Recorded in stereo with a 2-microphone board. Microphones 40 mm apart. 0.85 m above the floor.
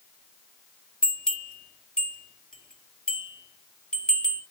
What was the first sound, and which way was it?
A bell, 20° left (ahead or behind).